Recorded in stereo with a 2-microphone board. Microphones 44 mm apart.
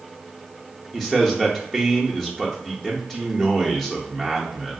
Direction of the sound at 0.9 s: 5° left (ahead or behind).